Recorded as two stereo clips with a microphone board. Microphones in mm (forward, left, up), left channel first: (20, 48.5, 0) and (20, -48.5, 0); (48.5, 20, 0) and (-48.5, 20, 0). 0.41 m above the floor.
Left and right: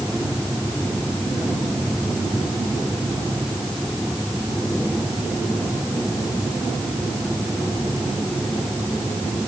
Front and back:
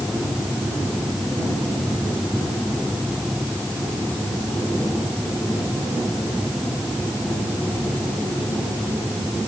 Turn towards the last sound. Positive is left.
No sound to turn to.